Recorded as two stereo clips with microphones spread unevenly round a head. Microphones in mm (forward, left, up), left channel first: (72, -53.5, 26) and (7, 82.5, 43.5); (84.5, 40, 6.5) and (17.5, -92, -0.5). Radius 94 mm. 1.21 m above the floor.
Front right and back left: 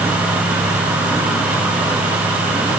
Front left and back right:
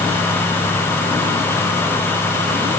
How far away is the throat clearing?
No throat clearing in this recording.